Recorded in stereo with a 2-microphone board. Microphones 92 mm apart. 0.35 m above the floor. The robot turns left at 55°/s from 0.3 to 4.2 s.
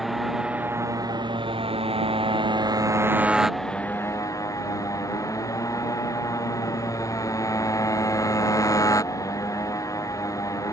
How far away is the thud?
I don't hear a thud.